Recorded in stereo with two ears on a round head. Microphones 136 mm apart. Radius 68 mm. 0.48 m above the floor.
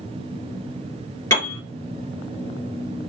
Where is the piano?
15° left (ahead or behind), 3.5 m.